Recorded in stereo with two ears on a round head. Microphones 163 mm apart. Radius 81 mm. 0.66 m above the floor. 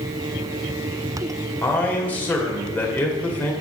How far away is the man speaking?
About 2 m.